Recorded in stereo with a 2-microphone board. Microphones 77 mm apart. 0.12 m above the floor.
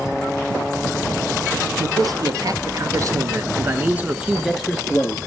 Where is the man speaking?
55° right (ahead or behind), 2.5 m; by 5.2 s 15° left (ahead or behind), 1.9 m.